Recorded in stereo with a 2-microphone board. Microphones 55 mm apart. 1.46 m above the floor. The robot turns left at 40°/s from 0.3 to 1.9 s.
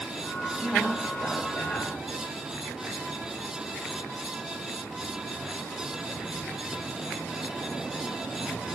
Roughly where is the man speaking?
Behind.